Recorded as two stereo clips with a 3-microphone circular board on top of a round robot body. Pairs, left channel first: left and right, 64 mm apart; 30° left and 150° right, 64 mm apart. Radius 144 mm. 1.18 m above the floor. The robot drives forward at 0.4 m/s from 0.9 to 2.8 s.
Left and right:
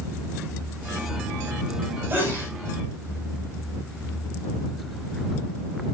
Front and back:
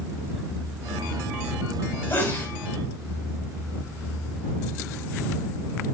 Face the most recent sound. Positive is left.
turn(degrees=-30)